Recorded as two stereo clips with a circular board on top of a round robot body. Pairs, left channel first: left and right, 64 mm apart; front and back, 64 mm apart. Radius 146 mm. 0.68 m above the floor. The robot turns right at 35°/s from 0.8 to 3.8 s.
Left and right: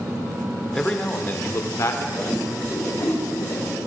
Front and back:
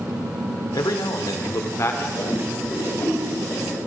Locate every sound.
0.7 s a man speaking: 10° left, 2.5 m; by 2.1 s 55° left, 2.5 m
2.2 s a whoosh: 10° left, 5.5 m; by 3.8 s 65° left, 5.5 m